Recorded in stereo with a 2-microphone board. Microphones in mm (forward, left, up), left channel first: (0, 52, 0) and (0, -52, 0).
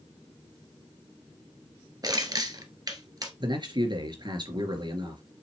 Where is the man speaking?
45° right (ahead or behind), 2.5 m.